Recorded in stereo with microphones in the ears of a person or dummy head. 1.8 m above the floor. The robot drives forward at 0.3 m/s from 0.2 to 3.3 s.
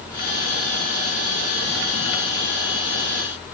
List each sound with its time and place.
Only background noise.